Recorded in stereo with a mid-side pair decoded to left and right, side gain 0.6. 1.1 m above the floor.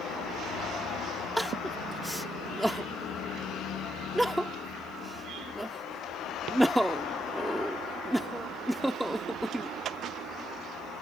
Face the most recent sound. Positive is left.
turn(degrees=-5)